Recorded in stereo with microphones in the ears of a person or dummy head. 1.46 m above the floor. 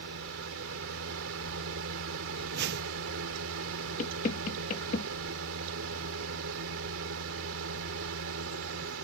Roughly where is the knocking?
Left.